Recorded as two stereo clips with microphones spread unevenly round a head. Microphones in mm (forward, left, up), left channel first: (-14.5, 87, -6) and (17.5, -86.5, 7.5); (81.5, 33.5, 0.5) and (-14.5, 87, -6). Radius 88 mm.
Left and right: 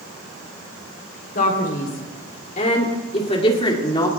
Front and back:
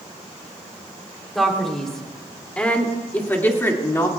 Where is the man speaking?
60° left, 3.5 m; by 4.1 s 35° left, 2.5 m.